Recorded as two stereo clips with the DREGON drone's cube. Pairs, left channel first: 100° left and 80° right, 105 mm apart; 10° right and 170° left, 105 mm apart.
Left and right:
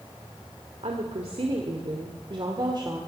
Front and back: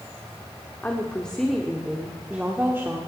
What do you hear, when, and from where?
0.8 s a woman speaking: 85° right, 1.7 m; by 3.0 s 125° right, 1.7 m